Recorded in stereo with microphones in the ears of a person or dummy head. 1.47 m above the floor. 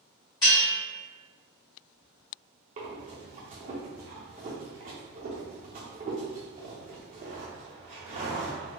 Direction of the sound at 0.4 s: 15° left (ahead or behind).